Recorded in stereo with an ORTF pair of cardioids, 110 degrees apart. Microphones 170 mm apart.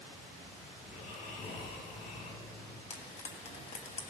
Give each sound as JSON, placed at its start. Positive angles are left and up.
{"t": 0.8, "sound": "snoring", "azimuth_deg": 60, "distance_m": 3.5}
{"t": 2.9, "sound": "frying", "azimuth_deg": 40, "distance_m": 1.6}